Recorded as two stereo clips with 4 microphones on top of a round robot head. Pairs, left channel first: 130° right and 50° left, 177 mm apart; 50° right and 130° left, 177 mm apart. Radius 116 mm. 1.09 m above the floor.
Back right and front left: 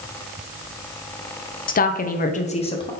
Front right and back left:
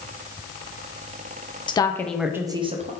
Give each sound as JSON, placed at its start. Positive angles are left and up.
{"t": 1.7, "sound": "a woman speaking", "azimuth_deg": -110, "distance_m": 0.7}